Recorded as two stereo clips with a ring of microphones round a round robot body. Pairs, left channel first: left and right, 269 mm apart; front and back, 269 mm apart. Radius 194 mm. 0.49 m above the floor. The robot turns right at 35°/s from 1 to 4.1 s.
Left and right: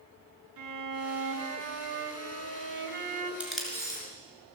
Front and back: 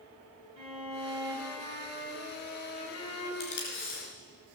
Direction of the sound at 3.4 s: 5° right.